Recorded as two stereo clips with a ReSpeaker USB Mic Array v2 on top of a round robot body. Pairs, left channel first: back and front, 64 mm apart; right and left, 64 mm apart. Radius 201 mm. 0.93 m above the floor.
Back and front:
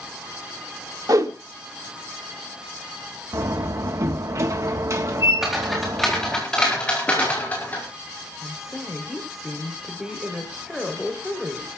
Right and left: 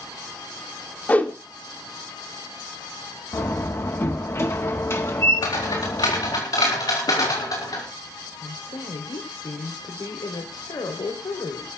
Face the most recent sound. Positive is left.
turn(degrees=-85)